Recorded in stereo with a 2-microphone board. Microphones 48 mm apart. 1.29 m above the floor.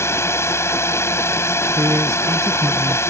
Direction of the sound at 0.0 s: 65° left (ahead or behind).